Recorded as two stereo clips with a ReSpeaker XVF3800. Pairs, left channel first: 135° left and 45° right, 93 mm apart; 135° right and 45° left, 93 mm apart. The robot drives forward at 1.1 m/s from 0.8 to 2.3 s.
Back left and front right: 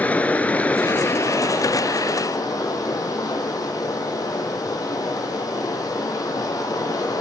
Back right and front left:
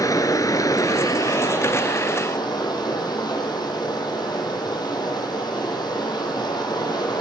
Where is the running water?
160° right, 0.8 m; by 7.2 s 175° right, 2.5 m.